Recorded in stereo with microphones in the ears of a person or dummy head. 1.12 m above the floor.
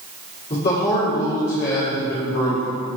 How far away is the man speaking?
About 2.5 m.